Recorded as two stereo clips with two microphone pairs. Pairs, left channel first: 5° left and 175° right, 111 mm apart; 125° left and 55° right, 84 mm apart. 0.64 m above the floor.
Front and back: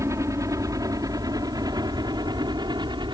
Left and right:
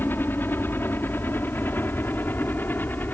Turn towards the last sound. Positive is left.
turn(degrees=180)